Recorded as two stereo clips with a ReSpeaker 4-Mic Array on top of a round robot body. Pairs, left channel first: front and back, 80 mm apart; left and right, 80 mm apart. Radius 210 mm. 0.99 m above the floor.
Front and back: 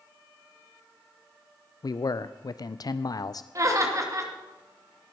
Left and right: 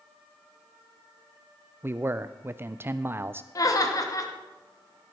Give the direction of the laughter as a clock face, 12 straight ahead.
8 o'clock.